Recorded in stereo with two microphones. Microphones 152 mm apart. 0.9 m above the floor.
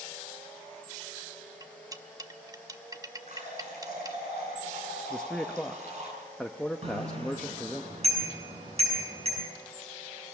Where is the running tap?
55° right (ahead or behind), 7.5 m.